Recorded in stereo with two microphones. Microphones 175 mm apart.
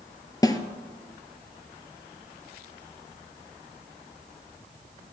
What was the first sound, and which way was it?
A snare drum, 20° left (ahead or behind).